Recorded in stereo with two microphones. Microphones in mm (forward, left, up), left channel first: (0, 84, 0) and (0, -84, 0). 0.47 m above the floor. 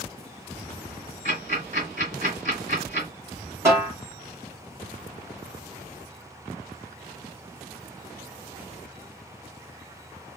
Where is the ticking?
50° right (ahead or behind), 2.5 m.